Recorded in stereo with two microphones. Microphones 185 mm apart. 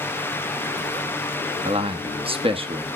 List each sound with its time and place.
1.6 s a man speaking: 30° right (ahead or behind), 0.9 m